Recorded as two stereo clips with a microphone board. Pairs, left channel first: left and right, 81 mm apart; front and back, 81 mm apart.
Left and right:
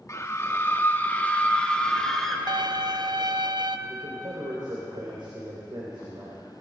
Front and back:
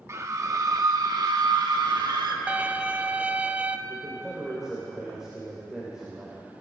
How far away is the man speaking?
About 3 m.